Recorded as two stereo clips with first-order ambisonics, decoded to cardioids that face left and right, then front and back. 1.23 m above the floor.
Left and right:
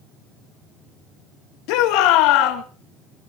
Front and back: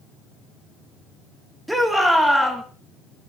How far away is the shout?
About 2.5 m.